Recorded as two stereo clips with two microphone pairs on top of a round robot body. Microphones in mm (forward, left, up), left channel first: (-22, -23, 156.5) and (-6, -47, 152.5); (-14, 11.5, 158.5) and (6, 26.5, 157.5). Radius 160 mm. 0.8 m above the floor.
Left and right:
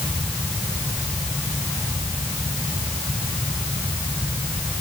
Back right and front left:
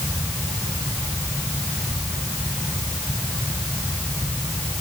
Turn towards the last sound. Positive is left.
No sound to turn to.